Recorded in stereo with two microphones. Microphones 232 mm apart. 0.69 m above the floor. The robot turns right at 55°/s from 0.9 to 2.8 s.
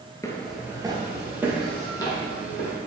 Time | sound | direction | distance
0.2 | footsteps | 15° left (ahead or behind) | 0.7 m